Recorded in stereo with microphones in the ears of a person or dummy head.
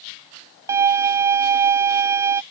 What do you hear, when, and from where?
0.7 s a violin: 15° right (ahead or behind)